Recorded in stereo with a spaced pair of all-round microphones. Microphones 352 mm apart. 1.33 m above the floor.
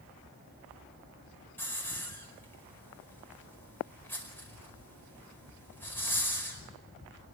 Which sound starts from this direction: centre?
A hiss, at 1.6 s.